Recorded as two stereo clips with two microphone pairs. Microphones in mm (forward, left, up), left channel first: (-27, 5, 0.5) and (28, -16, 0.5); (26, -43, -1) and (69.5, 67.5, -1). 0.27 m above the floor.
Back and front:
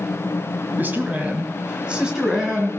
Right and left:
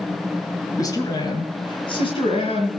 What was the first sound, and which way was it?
A man speaking, 65° right.